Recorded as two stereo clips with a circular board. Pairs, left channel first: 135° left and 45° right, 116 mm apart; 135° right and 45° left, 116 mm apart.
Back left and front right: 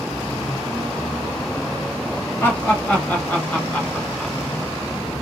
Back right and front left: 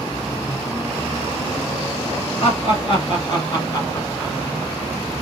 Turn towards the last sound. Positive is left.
turn(degrees=-145)